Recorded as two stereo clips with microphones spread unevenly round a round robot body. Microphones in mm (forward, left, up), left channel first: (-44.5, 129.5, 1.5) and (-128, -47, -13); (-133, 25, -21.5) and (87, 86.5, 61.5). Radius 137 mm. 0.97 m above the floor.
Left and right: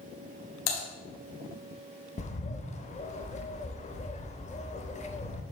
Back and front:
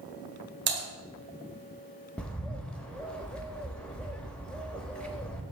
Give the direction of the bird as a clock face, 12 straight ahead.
9 o'clock.